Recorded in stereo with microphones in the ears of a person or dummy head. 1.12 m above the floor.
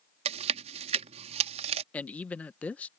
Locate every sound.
0.2 s chewing: 40° right (ahead or behind)
1.9 s a man speaking: 5° left (ahead or behind)